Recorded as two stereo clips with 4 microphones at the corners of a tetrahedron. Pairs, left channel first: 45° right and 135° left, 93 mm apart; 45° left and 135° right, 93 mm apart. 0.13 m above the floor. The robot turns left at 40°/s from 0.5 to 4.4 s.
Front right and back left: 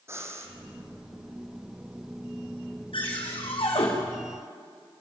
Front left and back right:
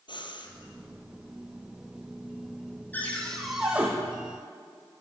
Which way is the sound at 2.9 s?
25° right.